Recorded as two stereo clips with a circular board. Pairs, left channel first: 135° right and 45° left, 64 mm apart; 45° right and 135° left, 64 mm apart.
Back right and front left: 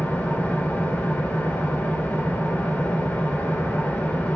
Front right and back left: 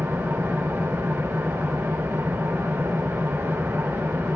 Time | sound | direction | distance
0.0 | an engine running | 170° left | 1.3 m